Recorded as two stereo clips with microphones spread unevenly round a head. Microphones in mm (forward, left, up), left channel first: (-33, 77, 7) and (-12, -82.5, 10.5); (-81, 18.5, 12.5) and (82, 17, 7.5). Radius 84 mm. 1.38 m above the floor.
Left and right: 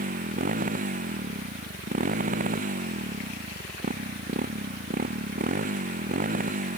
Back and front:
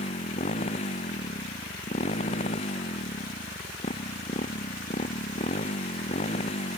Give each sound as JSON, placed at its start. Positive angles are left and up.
{"t": 0.0, "sound": "a motorcycle", "azimuth_deg": -125}